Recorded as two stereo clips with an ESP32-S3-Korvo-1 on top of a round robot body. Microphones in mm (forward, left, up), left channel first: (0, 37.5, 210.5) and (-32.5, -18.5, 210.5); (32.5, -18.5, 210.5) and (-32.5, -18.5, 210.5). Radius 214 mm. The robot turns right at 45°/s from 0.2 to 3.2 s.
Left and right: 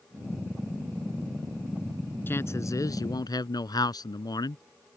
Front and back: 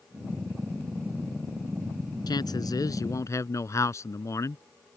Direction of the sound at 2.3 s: Straight ahead.